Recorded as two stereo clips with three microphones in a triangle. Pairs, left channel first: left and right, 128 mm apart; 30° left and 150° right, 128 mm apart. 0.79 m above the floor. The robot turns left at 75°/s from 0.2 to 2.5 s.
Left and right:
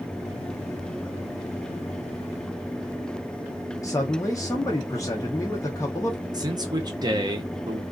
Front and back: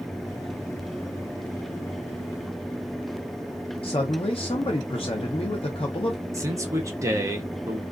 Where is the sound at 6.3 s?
105° right, 0.7 m.